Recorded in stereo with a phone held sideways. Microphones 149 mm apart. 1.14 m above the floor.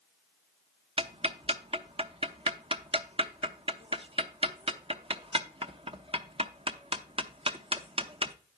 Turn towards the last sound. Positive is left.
turn(degrees=-35)  # may be behind; listen again after turning